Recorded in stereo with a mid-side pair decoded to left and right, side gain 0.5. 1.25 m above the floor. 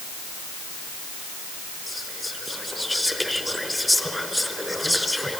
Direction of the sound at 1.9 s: Straight ahead.